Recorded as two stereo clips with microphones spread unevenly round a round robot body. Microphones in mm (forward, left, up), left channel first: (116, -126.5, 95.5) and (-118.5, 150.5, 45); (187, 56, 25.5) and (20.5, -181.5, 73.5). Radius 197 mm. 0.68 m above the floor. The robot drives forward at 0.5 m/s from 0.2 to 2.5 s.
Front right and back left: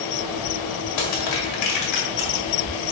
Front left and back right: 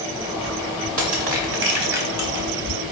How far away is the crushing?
About 2 m.